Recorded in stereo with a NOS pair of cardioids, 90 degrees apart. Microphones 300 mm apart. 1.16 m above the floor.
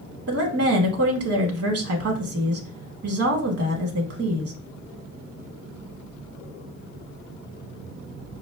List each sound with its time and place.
0.3 s a woman speaking: 55° right, 1.1 m